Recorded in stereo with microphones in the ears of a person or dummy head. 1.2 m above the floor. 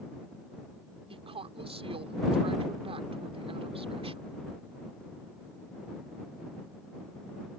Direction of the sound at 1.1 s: 30° right (ahead or behind).